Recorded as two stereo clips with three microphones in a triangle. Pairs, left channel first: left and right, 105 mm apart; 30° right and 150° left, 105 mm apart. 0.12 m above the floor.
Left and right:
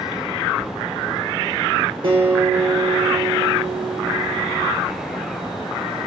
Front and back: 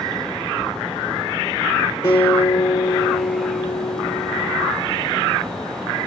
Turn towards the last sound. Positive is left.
turn(degrees=-60)